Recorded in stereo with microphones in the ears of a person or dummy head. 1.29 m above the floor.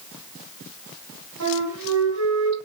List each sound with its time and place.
1.4 s a flute: 80° right, 7 m